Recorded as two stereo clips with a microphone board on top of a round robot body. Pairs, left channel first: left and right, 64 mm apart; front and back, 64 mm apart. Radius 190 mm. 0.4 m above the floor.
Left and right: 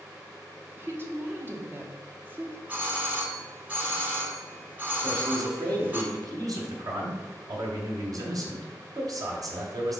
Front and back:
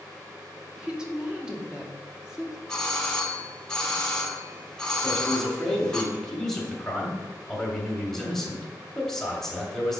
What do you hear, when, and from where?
0.8 s a woman speaking: 110° right, 1.6 m
2.7 s a doorbell: 65° right, 1.5 m
5.0 s a man speaking: 85° right, 1.9 m